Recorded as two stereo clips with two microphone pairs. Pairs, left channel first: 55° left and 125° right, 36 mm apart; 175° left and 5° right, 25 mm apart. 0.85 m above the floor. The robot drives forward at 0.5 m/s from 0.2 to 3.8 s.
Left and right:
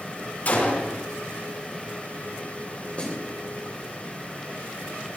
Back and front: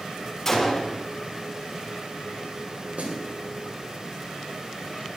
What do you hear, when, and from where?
0.5 s a gunshot: 95° left, 4.5 m; by 1.0 s 100° left, 4.5 m
3.0 s a snare drum: 5° left, 3 m